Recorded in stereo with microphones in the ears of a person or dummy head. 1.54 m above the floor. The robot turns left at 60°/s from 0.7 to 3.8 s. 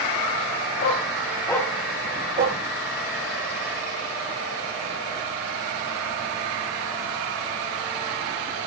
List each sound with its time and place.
0.8 s a dog barking: 50° left (ahead or behind), 3.5 m; by 2.6 s 50° right (ahead or behind), 3.5 m